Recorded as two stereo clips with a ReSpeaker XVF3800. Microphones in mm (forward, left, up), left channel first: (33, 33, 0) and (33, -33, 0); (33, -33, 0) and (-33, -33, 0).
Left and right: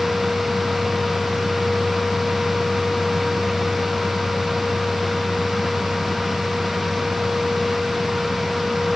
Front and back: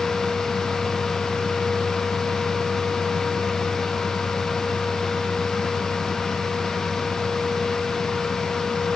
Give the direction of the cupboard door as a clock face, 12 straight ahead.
I don't hear a cupboard door.